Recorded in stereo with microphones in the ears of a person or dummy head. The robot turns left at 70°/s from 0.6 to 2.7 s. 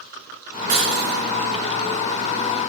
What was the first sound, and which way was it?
Breaking glass, 135° right.